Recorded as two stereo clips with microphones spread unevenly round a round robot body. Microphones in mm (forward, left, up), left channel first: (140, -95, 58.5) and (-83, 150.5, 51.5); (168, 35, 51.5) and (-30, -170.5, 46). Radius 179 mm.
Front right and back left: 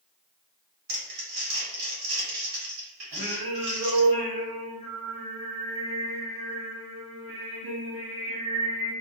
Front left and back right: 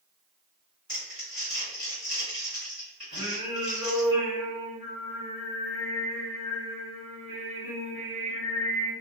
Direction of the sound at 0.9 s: 135° left.